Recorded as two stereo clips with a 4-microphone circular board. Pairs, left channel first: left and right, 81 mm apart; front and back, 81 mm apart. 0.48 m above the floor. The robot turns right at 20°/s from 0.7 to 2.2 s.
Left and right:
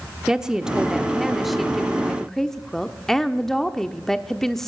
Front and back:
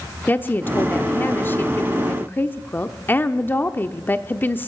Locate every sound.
0.3 s a woman speaking: 20° right, 0.7 m; by 4.7 s 10° left, 0.7 m